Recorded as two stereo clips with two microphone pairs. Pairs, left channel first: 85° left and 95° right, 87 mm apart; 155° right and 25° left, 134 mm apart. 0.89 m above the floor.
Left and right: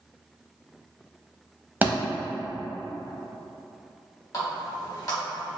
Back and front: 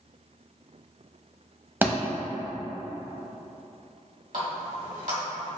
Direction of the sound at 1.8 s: 35° right.